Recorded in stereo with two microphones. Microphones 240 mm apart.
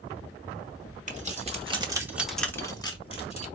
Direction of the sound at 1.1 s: 30° right (ahead or behind).